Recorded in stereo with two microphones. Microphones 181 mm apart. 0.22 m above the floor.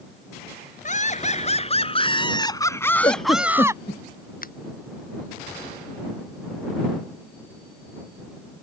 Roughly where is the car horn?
No car horn in this recording.